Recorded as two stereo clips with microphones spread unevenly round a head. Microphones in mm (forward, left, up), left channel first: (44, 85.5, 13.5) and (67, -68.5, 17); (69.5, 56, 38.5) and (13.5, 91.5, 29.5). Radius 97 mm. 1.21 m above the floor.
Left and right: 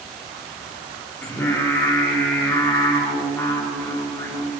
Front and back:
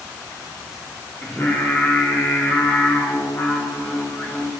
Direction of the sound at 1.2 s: 25° left.